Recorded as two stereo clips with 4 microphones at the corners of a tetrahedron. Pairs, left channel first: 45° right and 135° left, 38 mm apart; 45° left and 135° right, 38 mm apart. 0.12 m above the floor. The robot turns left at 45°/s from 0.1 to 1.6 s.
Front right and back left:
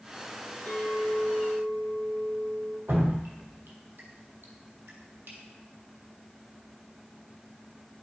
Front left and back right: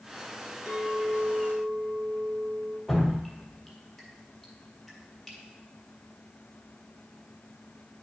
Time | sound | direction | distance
0.7 | a clink | 85° right | 2.5 m
2.9 | dripping | 135° left | 1.9 m